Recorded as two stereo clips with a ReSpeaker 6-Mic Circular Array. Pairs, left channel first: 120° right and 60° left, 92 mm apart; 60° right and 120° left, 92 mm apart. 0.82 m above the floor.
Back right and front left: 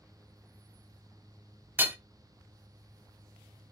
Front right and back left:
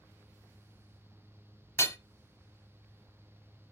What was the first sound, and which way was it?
Hammering, 5° right.